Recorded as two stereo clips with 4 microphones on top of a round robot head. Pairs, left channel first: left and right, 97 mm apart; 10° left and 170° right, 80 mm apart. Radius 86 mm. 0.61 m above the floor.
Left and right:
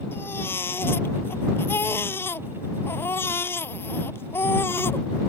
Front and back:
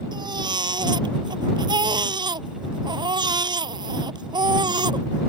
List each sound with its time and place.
0.1 s a baby crying: 160° left